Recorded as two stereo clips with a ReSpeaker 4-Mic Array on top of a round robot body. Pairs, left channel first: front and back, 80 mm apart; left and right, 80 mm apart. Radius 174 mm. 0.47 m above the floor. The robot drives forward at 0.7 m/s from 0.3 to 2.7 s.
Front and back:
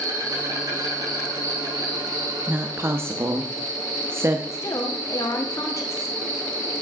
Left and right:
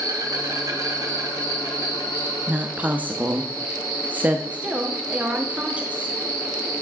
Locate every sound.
0.0 s an insect: 135° right, 5 m; by 6.8 s 145° right, 6.5 m
2.5 s a woman speaking: 135° right, 1.1 m; by 4.4 s 145° right, 1.1 m
4.5 s a woman speaking: 25° right, 1.6 m